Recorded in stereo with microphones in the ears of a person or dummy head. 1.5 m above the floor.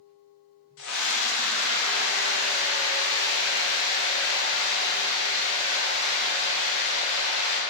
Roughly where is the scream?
Left.